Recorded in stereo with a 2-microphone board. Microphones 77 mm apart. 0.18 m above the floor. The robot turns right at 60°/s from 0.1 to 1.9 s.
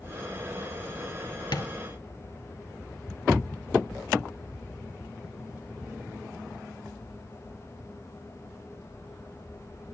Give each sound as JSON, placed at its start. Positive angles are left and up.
{"t": 1.5, "sound": "tapping", "side_deg": 70, "distance_m": 1.8}